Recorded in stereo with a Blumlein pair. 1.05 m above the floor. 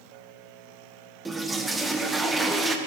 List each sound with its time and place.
1.2 s a toilet flushing: 10° right, 0.7 m